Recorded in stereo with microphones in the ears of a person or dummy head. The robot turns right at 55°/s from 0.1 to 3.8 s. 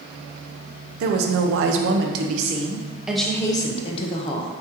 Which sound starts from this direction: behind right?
A woman speaking, at 1.0 s.